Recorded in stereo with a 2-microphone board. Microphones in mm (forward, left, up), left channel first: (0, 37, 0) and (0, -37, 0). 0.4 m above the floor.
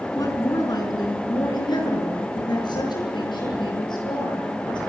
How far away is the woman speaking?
About 4.5 m.